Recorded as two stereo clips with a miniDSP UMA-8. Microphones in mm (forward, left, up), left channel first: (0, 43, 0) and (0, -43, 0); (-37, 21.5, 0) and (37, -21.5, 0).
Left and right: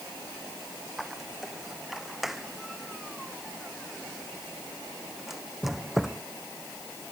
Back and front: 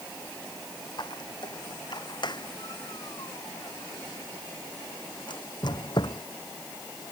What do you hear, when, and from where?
1.0 s a squeak: straight behind